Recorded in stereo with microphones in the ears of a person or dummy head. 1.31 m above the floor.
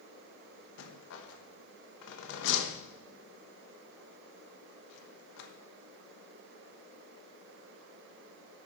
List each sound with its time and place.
0.8 s a rattle: 75° left (ahead or behind), 1.2 m